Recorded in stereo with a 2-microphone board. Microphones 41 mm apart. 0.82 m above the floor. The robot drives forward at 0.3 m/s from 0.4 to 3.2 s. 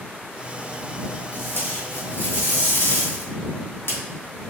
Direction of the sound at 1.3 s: 60° left (ahead or behind).